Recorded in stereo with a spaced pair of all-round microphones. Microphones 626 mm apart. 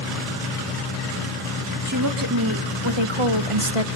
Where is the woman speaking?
25° right (ahead or behind), 2 m; by 3.9 s 60° right (ahead or behind), 1.6 m.